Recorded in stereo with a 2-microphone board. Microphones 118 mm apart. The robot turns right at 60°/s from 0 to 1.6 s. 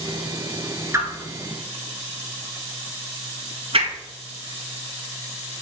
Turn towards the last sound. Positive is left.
turn(degrees=-50)  # may be behind; listen again after turning